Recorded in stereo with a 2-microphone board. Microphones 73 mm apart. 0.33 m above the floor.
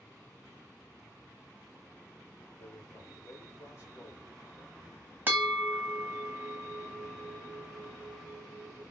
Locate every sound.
2.6 s a man speaking: 45° left (ahead or behind), 2.0 m
5.3 s a bell: 30° right (ahead or behind), 0.9 m